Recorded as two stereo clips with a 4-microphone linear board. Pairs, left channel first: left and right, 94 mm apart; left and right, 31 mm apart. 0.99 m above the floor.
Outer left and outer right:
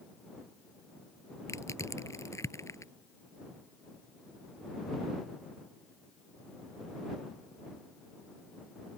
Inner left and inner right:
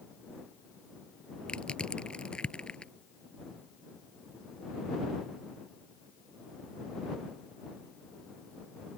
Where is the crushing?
30° left (ahead or behind).